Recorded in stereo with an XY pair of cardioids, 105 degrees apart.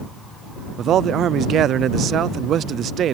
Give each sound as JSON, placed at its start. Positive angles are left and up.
{"t": 0.8, "sound": "a man speaking", "azimuth_deg": -65}